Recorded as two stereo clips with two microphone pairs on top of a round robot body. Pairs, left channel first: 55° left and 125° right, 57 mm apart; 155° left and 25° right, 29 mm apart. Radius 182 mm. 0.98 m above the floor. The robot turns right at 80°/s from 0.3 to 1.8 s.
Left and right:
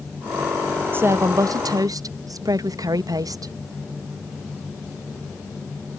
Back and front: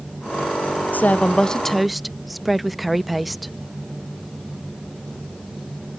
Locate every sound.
0.9 s a woman speaking: straight behind; by 3.5 s 110° right